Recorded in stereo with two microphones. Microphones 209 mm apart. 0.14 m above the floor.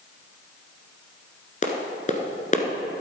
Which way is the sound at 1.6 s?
35° left (ahead or behind).